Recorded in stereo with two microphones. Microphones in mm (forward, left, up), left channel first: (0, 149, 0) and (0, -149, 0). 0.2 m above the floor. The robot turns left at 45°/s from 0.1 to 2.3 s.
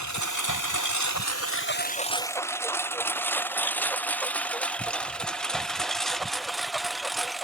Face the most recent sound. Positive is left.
turn(degrees=0)  # may be behind; listen again after turning